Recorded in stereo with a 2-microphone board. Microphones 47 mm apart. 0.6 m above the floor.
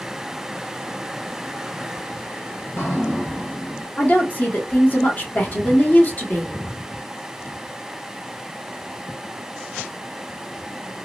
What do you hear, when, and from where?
2.6 s dripping: 60° left (ahead or behind), 2.0 m
4.0 s a woman speaking: 40° left (ahead or behind), 1.1 m